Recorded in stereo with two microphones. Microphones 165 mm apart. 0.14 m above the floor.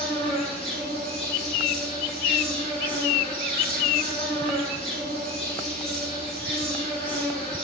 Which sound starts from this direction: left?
An insect, at 0.0 s.